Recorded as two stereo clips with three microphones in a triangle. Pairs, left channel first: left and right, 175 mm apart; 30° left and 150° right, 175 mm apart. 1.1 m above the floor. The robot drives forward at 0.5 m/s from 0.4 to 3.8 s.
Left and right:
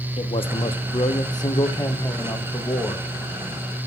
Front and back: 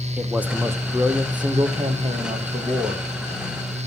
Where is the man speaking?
130° left, 0.9 m; by 3.1 s 165° left, 1.9 m.